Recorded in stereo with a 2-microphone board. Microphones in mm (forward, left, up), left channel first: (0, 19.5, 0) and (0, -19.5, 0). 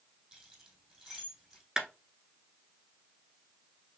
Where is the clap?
15° right (ahead or behind), 1.0 m.